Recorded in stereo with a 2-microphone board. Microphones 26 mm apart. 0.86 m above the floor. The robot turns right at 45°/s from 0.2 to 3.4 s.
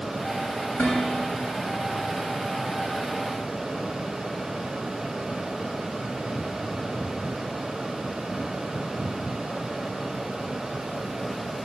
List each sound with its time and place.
0.8 s dishes clattering: 75° left (ahead or behind), 6.5 m